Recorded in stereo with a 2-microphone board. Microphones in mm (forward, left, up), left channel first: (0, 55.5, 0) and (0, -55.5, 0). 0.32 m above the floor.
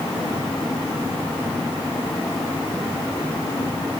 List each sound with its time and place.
Only background noise.